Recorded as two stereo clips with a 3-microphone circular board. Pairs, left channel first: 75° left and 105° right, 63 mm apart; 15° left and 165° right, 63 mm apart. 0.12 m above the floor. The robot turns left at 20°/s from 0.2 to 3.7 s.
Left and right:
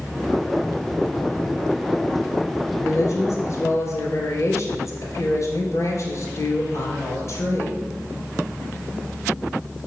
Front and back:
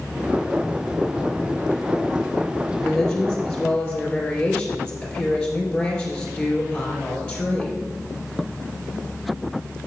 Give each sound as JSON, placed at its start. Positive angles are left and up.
{"t": 2.8, "sound": "a woman speaking", "azimuth_deg": 100, "distance_m": 2.5}